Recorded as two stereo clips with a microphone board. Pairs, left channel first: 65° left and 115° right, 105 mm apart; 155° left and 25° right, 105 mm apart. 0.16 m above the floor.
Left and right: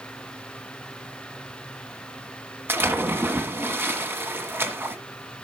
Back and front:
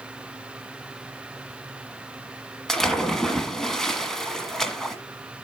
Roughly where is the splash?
Behind right.